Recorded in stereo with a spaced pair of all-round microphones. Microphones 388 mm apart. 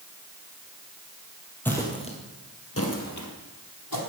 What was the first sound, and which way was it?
Footsteps, 5° left (ahead or behind).